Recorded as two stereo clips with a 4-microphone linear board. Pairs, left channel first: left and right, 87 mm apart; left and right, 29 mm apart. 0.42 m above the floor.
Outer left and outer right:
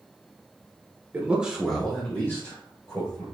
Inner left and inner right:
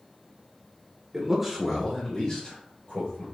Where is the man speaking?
20° right (ahead or behind), 1.1 m; by 3.2 s 45° left (ahead or behind), 1.7 m.